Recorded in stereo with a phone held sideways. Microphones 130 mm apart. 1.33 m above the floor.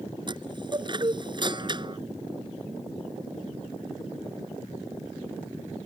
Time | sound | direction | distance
0.3 | a chime | 35° right (ahead or behind) | ?